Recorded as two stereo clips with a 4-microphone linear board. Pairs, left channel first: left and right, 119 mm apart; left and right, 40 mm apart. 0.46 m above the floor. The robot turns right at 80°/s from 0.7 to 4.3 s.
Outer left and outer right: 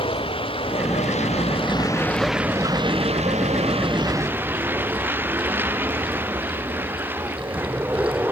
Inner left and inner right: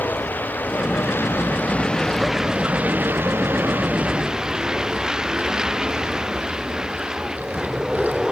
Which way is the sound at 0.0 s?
55° left.